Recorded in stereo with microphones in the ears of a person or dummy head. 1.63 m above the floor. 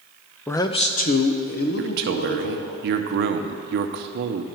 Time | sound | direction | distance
0.5 | a man speaking | 10° left (ahead or behind) | 0.5 m
1.8 | a man speaking | 50° right (ahead or behind) | 0.6 m